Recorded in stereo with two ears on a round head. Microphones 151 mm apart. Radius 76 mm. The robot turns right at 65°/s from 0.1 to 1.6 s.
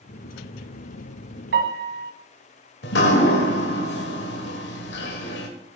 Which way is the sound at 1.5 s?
70° right (ahead or behind).